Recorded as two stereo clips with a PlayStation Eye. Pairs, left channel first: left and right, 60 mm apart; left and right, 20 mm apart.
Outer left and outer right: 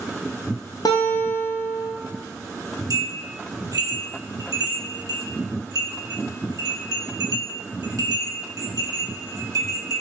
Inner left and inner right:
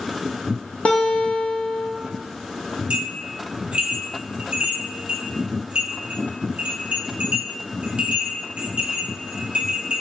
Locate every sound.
0.8 s a guitar: 80° left, 0.5 m
2.9 s a bell: 70° right (ahead or behind), 0.7 m